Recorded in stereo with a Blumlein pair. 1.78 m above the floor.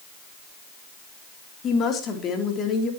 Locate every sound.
1.6 s a woman speaking: 25° left, 3.5 m